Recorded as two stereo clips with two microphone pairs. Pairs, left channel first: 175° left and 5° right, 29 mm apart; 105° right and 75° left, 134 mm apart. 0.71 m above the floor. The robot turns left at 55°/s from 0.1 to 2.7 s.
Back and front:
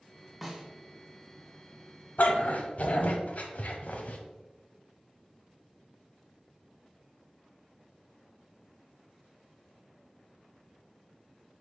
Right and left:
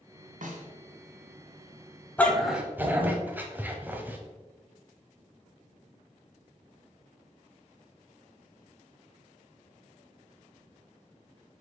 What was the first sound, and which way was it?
A snare drum, 80° left.